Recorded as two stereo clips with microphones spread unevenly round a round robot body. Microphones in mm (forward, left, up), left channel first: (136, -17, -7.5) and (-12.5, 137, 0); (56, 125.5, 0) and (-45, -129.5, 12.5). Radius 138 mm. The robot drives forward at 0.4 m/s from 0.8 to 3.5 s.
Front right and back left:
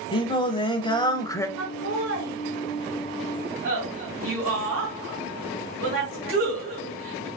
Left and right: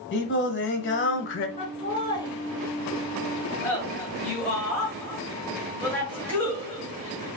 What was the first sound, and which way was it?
Singing, 20° left.